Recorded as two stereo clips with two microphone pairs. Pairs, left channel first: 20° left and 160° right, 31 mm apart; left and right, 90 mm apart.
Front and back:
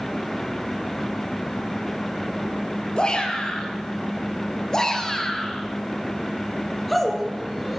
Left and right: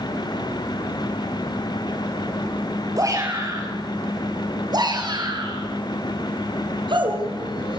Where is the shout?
40° right, 6 m; by 7.8 s 75° right, 5 m.